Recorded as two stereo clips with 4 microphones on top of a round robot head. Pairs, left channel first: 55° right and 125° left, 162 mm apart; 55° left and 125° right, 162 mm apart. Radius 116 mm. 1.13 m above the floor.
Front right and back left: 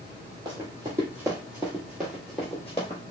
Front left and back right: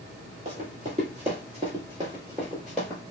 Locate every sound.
0.5 s running footsteps: 165° right, 1.6 m; by 3.0 s 15° right, 1.1 m